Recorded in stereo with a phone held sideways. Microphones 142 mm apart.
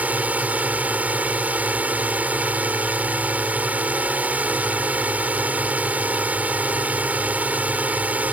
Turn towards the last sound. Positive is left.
turn(degrees=-10)  # may be behind; listen again after turning